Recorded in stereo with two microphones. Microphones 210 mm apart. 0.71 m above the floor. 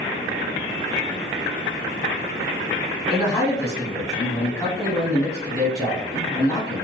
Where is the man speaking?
5° left (ahead or behind), 1.5 m.